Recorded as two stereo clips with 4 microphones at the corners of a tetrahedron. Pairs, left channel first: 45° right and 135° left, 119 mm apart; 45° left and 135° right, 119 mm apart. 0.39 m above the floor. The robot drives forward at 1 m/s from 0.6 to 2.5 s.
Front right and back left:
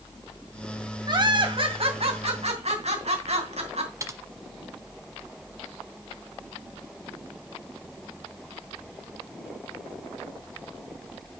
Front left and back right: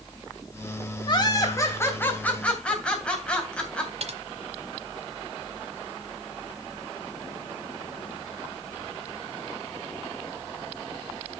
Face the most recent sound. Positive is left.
turn(degrees=-160)